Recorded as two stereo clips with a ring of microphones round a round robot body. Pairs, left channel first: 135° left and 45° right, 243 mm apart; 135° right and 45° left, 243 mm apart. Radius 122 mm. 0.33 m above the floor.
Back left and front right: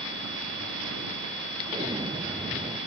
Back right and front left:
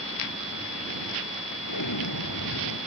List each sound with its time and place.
1.7 s an explosion: 120° right